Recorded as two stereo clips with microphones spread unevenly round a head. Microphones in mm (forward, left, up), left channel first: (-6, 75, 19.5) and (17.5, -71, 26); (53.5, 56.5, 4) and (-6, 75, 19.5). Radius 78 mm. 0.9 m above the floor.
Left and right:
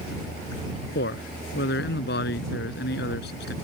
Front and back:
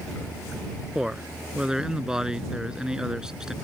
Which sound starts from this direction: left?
A man speaking, at 0.9 s.